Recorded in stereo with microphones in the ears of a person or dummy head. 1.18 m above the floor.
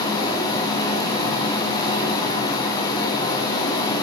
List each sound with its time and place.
0.0 s running water: 20° left (ahead or behind), 4.5 m